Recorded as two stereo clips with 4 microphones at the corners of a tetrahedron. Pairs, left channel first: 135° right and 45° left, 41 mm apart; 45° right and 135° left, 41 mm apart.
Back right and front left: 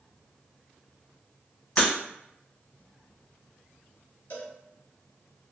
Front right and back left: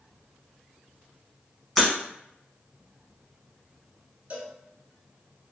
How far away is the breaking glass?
About 0.9 m.